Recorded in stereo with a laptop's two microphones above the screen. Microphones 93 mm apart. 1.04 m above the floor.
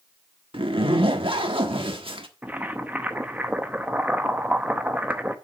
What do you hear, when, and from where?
0.5 s a zipper: 70° right (ahead or behind), 1.3 m
2.4 s boiling: 20° right (ahead or behind), 0.7 m